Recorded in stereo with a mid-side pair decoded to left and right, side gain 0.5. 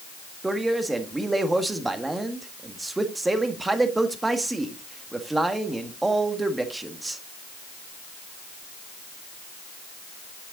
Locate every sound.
0.4 s a man speaking: 15° right, 1.6 m